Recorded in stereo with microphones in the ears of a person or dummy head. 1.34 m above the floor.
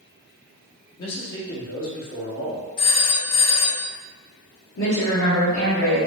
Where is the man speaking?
70° left (ahead or behind), 1.3 m.